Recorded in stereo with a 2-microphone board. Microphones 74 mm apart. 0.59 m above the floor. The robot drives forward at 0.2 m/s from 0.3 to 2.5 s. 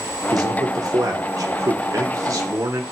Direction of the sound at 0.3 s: 60° right (ahead or behind).